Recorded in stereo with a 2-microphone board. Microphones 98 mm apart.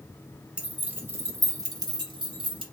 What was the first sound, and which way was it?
Keys jangling, 10° right (ahead or behind).